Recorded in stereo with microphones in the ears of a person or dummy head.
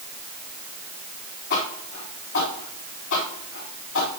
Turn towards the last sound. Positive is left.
turn(degrees=75)  # may be behind; listen again after turning